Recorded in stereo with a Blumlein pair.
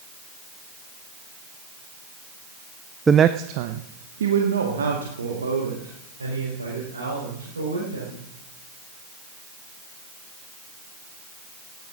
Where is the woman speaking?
10° right, 0.5 m; by 8.2 s 80° right, 5.5 m.